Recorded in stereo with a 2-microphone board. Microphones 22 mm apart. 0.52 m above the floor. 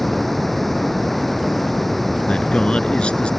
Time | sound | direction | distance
0.0 | running water | 10° left (ahead or behind) | ?
2.3 | a man speaking | 55° left (ahead or behind) | ?